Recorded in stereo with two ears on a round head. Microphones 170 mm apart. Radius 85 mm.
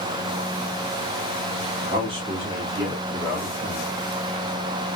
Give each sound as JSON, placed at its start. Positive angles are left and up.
{"t": 1.8, "sound": "a man speaking", "side_deg": -35, "distance_m": 0.8}